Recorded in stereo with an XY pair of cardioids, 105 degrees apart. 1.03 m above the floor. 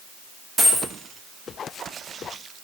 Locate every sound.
0.6 s a dropped coin: 35° right, 1.0 m